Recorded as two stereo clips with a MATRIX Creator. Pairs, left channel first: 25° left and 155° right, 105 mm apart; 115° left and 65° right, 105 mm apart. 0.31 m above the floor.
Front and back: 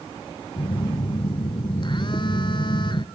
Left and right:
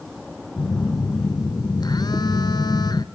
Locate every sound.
0.6 s a phone buzzing: 65° left, 0.9 m